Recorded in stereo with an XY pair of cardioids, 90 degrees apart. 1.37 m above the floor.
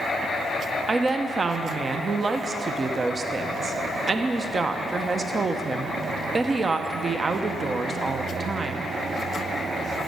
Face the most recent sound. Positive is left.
turn(degrees=-35)